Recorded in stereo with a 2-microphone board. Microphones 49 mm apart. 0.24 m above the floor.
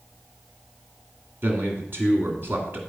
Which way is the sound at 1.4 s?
50° right (ahead or behind).